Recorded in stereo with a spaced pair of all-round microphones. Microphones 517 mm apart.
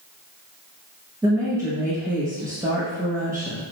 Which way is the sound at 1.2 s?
5° right (ahead or behind).